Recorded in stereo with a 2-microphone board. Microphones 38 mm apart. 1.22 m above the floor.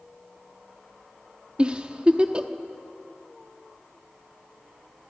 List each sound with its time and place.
1.6 s a giggle: 25° right (ahead or behind), 1.0 m